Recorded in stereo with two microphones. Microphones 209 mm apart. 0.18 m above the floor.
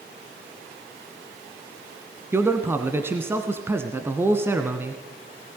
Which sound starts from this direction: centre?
A man speaking, at 2.3 s.